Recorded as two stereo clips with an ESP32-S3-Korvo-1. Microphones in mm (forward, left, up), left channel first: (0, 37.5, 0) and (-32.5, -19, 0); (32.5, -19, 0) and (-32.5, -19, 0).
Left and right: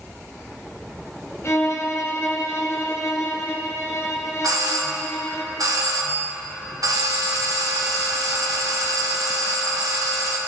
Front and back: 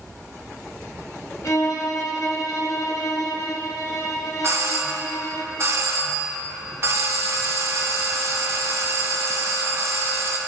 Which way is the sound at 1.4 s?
25° left.